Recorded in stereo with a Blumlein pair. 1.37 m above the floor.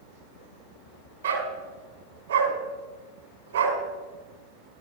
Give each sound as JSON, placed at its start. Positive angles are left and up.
{"t": 1.2, "sound": "a dog barking", "azimuth_deg": -65, "distance_m": 3.5}